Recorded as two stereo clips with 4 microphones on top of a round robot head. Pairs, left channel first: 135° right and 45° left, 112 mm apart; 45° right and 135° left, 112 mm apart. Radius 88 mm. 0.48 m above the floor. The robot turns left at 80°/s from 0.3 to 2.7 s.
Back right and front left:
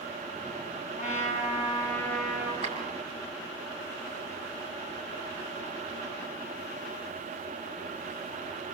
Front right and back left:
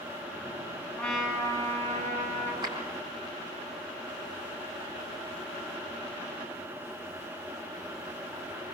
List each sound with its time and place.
1.0 s a trumpet: 125° right, 7 m; by 2.5 s 115° left, 7 m
2.6 s a clap: 80° left, 4.5 m; by 2.8 s 75° left, 4.5 m